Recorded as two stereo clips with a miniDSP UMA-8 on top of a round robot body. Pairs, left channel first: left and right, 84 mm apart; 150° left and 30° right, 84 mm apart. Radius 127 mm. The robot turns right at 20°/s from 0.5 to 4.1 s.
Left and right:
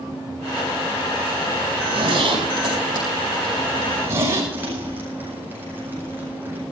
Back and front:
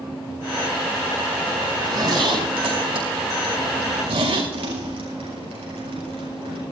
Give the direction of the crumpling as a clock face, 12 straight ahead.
1 o'clock.